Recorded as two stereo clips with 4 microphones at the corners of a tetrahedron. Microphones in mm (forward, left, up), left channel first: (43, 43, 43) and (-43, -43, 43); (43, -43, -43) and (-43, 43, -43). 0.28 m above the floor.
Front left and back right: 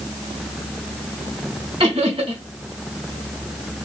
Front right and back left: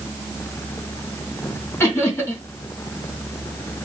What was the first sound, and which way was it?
Laughter, 115° right.